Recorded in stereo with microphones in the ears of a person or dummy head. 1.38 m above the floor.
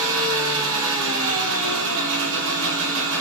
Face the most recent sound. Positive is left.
turn(degrees=-70)  # may be behind; listen again after turning